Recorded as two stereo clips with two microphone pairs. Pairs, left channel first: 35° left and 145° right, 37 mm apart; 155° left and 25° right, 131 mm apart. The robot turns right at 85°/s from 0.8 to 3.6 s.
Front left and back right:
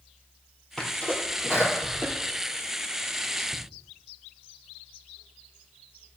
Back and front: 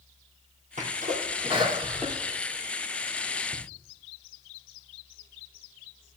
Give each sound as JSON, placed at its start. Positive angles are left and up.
{"t": 0.8, "sound": "a sneeze", "azimuth_deg": -45, "distance_m": 3.0}